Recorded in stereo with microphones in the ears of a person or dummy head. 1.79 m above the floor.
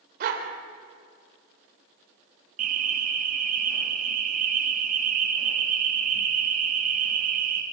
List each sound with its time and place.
0.2 s a dog barking: 60° right (ahead or behind), 3.5 m
2.6 s an alarm: 45° right (ahead or behind), 2.5 m